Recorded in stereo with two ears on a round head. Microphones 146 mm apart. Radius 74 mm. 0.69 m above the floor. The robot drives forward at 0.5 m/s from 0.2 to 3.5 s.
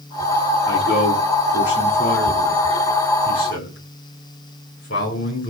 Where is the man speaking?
80° left, 7.5 m; by 5.5 s 70° left (ahead or behind), 7.5 m.